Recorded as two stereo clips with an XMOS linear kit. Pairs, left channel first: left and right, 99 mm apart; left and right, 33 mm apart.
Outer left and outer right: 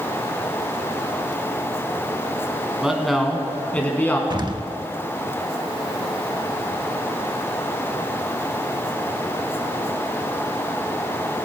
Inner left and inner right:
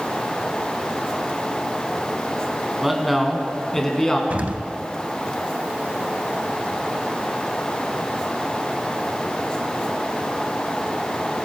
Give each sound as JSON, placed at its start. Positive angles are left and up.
{"t": 2.8, "sound": "a man speaking", "side_deg": -5, "distance_m": 1.8}
{"t": 4.3, "sound": "an explosion", "side_deg": -45, "distance_m": 0.6}